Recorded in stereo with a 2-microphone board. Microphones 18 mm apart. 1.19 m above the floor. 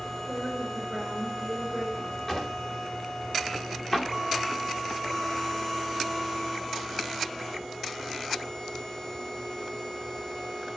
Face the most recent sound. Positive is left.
turn(degrees=20)  # may be behind; listen again after turning